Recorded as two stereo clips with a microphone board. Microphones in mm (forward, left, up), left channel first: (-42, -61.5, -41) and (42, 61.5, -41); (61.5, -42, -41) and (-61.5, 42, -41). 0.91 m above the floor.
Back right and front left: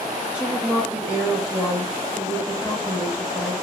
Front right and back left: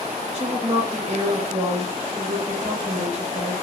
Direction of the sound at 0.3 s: 135° left.